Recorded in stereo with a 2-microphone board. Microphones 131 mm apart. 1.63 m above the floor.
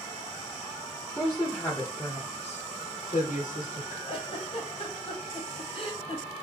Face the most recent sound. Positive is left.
turn(degrees=40)  # may be behind; listen again after turning